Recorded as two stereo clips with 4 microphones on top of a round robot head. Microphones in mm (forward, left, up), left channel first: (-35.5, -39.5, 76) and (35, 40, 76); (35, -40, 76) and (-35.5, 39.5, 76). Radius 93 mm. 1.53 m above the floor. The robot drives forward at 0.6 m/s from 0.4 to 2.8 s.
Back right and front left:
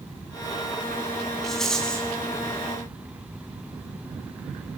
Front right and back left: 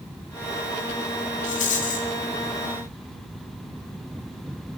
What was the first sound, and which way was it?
A rattle, 45° right.